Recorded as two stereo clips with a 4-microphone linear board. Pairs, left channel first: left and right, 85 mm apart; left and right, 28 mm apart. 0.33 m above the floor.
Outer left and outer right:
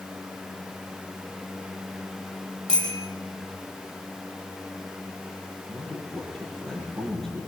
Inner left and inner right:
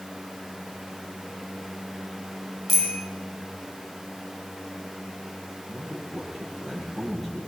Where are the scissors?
No scissors in this recording.